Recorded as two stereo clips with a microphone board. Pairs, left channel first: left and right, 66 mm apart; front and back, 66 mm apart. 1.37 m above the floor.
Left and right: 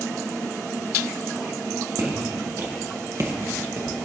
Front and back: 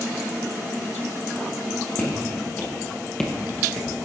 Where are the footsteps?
65° right, 3.5 m; by 4.0 s 130° right, 1.6 m.